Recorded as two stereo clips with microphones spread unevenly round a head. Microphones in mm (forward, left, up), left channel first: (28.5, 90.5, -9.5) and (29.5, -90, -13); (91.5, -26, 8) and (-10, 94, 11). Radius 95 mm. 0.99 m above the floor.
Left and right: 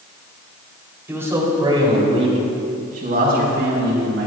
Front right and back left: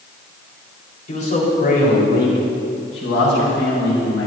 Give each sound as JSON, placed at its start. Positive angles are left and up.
{"t": 1.1, "sound": "a man speaking", "azimuth_deg": -10, "distance_m": 4.0}